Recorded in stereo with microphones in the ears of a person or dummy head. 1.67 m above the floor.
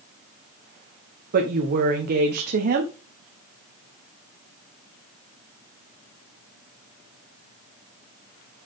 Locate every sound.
1.3 s a woman speaking: 45° right (ahead or behind), 1.2 m